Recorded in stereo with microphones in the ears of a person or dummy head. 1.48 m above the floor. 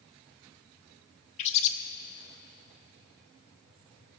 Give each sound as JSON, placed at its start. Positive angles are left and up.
{"t": 1.4, "sound": "a bird", "side_deg": 35, "distance_m": 0.8}